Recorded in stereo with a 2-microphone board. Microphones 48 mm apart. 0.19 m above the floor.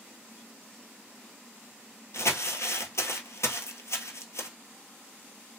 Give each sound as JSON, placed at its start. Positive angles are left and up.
{"t": 2.1, "sound": "crumpling", "side_deg": 75, "distance_m": 0.9}